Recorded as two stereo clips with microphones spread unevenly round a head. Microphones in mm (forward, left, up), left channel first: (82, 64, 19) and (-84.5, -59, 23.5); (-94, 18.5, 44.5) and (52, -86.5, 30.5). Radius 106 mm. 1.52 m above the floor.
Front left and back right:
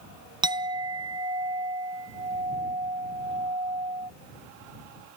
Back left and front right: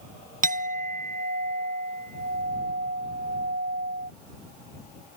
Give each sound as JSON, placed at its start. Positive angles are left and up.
{"t": 0.4, "sound": "a clink", "azimuth_deg": -75}